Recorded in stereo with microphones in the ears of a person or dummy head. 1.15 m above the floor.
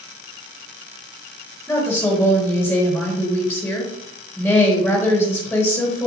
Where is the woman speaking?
10° left (ahead or behind), 2 m.